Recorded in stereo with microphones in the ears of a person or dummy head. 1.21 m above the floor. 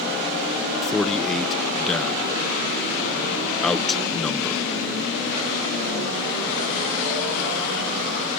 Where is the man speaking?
5° left (ahead or behind).